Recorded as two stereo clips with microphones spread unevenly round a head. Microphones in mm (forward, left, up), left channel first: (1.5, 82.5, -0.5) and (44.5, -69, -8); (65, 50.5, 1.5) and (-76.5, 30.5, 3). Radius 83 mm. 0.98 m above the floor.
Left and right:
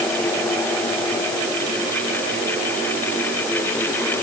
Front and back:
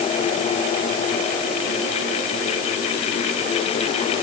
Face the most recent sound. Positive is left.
No sound to turn to.